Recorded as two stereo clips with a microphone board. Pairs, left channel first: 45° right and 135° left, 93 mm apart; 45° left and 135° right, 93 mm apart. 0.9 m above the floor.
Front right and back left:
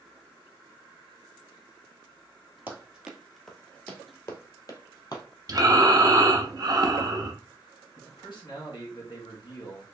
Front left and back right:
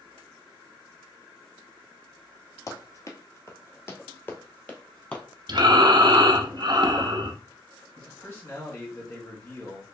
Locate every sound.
2.7 s running footsteps: 75° left, 1.1 m; by 5.2 s 30° right, 1.3 m
5.5 s breathing: 175° right, 0.6 m
8.0 s a man speaking: 15° right, 1.7 m